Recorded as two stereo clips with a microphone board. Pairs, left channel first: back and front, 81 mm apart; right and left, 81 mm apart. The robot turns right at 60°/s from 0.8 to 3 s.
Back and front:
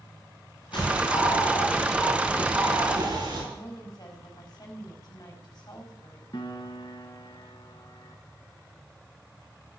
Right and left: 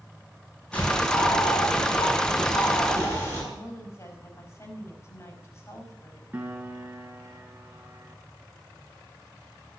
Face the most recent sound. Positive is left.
turn(degrees=160)